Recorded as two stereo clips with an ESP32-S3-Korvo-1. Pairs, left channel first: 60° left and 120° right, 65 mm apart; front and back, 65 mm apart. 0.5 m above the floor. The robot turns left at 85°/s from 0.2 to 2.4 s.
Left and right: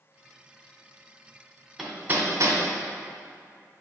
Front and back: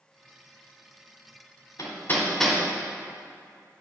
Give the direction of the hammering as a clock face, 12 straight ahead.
1 o'clock.